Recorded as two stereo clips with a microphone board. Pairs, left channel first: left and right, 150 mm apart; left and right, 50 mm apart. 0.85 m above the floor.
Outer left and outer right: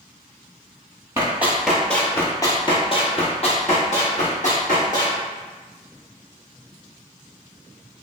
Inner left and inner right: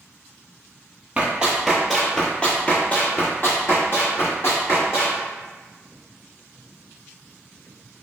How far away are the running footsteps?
About 1.0 m.